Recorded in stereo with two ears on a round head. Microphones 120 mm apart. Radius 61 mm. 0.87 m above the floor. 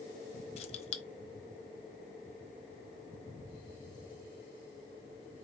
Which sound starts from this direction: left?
Keys jangling, at 0.6 s.